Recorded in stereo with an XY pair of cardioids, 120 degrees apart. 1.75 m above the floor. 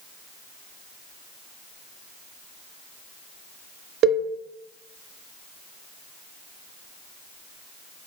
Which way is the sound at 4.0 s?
55° right.